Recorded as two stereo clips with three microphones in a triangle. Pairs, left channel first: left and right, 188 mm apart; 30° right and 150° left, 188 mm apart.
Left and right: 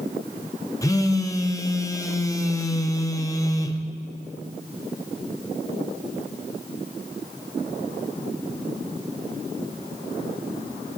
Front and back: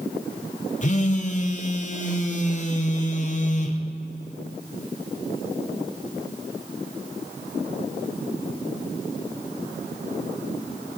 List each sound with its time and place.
0.8 s a phone buzzing: 15° left, 0.6 m